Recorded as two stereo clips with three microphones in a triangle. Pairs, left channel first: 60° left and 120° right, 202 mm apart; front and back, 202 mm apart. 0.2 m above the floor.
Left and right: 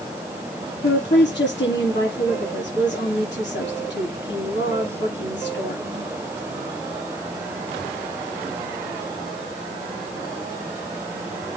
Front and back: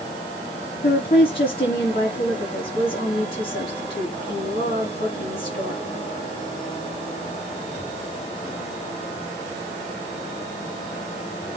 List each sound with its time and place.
0.8 s a woman speaking: 40° left, 6 m